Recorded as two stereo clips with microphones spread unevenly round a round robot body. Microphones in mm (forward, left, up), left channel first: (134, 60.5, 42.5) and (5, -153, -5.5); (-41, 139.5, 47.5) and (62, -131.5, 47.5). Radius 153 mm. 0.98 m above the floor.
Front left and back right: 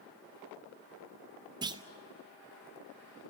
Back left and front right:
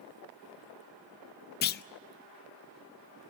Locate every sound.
1.6 s a clunk: 170° left, 0.5 m